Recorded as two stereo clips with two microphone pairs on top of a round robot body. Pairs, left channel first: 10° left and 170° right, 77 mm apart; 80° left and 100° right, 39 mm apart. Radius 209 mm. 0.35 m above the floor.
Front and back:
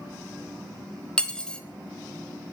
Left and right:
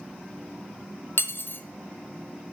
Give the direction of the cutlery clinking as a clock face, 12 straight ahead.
9 o'clock.